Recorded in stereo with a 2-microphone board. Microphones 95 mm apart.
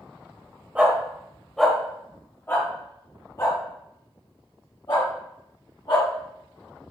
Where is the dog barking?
15° right (ahead or behind), 1.3 m; by 6.1 s 60° left (ahead or behind), 2.5 m.